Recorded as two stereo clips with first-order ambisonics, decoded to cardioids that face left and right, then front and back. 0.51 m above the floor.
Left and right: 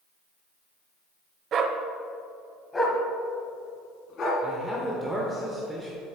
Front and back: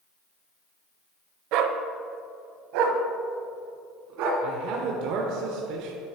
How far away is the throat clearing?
I don't hear throat clearing.